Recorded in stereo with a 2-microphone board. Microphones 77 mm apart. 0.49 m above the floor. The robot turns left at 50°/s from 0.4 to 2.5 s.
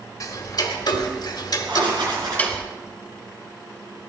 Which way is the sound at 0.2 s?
50° left (ahead or behind).